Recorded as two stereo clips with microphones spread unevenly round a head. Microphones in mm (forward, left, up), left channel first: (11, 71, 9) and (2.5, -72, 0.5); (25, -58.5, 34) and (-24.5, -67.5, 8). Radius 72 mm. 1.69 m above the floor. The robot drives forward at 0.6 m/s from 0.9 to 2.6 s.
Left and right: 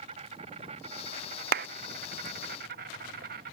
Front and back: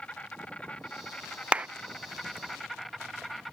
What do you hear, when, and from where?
0.0 s an insect: 45° right; by 3.5 s 65° right
1.5 s a clap: 80° right; by 1.7 s 95° right